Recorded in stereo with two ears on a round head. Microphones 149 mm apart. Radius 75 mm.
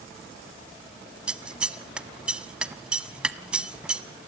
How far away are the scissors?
About 0.8 m.